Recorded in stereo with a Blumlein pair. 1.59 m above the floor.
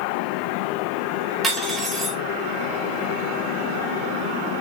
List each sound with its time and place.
1.4 s cutlery clinking: 15° right, 3 m